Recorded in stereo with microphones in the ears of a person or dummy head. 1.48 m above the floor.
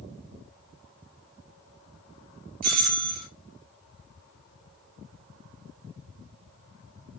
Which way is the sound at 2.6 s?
45° right (ahead or behind).